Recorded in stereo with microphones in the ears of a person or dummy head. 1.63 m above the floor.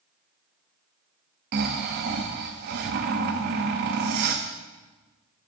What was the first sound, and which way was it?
Snoring, 55° right (ahead or behind).